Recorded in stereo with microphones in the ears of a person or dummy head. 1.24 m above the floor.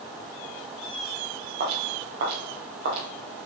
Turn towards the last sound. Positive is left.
turn(degrees=-65)  # may be behind; listen again after turning